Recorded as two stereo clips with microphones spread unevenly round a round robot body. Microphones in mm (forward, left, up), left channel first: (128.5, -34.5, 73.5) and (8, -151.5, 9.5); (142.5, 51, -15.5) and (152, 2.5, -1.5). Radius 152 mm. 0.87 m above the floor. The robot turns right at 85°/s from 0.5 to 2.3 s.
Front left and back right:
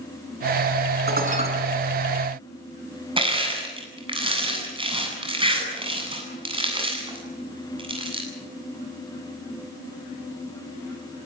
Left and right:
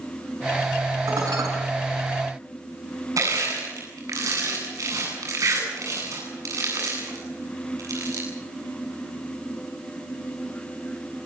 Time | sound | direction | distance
1.1 | dishes clattering | 115° right | 6.5 m
3.2 | crushing | 75° right | 8.5 m